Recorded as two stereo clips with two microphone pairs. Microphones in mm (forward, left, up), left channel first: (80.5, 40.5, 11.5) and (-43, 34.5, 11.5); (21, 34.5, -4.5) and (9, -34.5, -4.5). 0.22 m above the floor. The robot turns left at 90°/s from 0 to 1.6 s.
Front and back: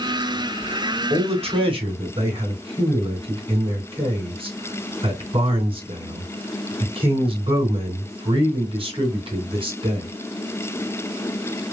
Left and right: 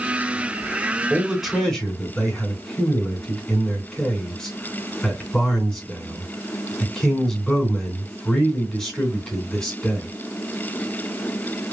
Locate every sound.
1.1 s a man speaking: 155° right, 2.5 m; by 10.1 s 160° left, 2.5 m